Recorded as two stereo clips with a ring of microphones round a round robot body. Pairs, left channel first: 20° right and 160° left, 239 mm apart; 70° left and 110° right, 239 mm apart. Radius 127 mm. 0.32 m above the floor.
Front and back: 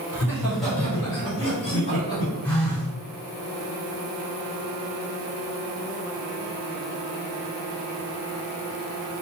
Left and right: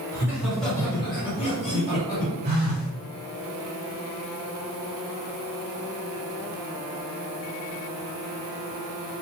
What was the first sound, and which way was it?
Laughter, 155° right.